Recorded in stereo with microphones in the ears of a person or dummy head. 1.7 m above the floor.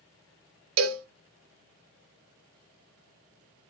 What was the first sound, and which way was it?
A cowbell, 75° right (ahead or behind).